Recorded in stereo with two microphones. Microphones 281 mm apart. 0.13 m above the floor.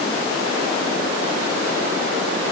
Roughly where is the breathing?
I don't hear breathing.